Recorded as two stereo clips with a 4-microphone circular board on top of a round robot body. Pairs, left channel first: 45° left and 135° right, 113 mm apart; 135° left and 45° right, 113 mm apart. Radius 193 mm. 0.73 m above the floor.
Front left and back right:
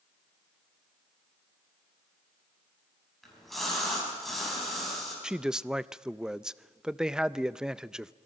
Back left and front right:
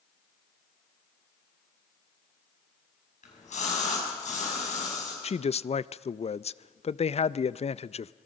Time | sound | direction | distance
3.2 | a splash | 135° left | 6 m
5.2 | a man speaking | 140° left | 0.6 m